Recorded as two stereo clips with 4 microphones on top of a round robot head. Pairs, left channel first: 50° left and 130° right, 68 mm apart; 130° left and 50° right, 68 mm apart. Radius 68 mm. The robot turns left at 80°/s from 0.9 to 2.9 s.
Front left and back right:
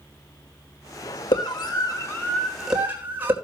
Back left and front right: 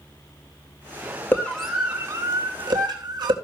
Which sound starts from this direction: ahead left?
A scream, at 1.3 s.